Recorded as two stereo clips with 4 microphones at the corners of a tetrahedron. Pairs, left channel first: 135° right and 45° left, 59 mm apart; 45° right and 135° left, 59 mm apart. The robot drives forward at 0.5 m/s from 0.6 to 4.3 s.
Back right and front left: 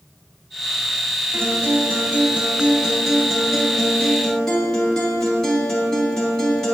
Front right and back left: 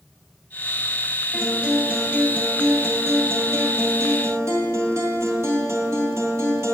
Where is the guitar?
55° left, 1.2 m; by 6.7 s 150° left, 1.6 m.